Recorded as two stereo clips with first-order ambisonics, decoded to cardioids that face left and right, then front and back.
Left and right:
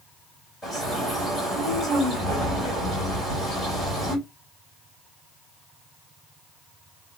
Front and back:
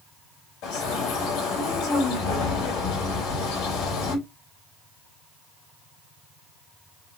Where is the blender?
No blender in this recording.